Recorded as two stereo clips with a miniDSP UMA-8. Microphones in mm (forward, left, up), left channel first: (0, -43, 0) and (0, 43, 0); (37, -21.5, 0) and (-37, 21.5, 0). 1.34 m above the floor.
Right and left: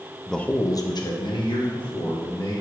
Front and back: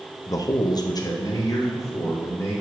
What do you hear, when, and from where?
0.3 s a man speaking: straight ahead, 0.6 m; by 2.5 s 85° right, 2.5 m